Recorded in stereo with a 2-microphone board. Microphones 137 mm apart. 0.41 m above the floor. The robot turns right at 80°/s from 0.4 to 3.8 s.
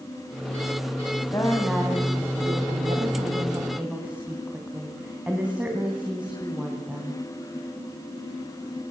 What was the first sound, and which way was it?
A woman speaking, 150° left.